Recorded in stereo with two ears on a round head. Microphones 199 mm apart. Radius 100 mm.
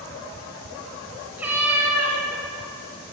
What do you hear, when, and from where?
1.4 s a cat meowing: 10° right (ahead or behind), 1.6 m